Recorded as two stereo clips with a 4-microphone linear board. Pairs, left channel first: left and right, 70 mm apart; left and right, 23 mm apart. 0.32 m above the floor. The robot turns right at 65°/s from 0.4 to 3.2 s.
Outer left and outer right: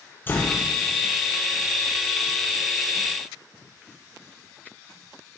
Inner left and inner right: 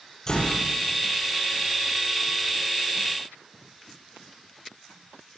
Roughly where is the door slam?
Left.